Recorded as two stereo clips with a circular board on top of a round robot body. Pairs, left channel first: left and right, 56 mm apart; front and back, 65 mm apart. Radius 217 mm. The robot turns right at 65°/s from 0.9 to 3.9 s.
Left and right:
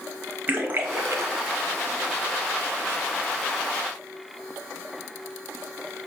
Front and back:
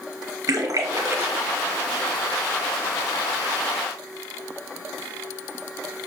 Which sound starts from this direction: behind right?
A splash, at 0.5 s.